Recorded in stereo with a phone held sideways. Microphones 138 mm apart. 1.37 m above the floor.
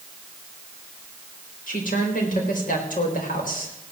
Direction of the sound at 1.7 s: 80° left.